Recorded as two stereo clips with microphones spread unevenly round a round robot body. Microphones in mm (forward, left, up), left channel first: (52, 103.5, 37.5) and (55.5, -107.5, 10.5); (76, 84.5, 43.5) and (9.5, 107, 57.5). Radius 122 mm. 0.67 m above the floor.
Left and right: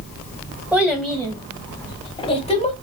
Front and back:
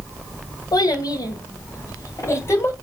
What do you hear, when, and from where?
0.7 s a child speaking: 5° right, 2 m; by 2.7 s 35° left, 2.5 m